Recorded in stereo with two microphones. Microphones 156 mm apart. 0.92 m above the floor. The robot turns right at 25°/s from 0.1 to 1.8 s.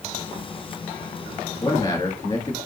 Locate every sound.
1.6 s a man speaking: 30° left (ahead or behind), 1.7 m; by 2.6 s 25° left (ahead or behind), 1.7 m